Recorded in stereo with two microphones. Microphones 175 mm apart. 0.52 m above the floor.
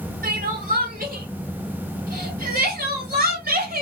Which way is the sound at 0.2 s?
55° right (ahead or behind).